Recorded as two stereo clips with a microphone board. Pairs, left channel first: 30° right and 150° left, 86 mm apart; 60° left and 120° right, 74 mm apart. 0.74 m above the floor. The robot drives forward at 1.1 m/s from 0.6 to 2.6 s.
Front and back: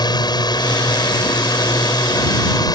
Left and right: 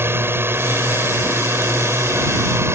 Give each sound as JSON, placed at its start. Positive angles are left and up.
{"t": 0.0, "sound": "a drone", "azimuth_deg": -65}